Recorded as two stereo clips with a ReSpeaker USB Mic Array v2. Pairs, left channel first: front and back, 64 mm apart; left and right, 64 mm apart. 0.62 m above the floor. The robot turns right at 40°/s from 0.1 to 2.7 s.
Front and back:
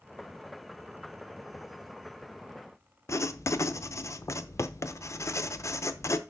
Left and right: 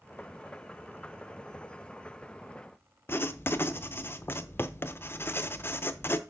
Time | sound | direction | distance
3.1 | writing | 40° left | 0.6 m